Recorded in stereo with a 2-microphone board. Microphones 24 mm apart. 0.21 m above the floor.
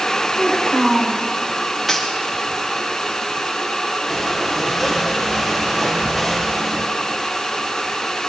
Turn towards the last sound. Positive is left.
turn(degrees=-10)  # may be behind; listen again after turning